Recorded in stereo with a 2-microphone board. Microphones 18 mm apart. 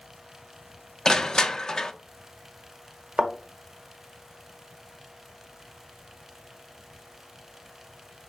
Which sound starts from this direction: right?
A thud, at 3.2 s.